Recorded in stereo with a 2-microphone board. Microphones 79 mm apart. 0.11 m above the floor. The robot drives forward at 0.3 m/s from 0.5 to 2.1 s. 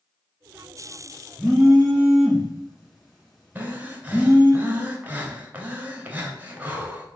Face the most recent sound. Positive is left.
turn(degrees=-20)  # may be behind; listen again after turning